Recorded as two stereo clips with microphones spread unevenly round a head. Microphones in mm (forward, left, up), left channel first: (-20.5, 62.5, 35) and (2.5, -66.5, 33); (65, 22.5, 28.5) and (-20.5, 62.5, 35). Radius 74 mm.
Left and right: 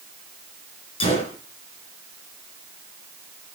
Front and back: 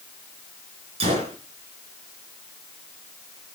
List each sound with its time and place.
1.0 s a gunshot: 150° left, 3 m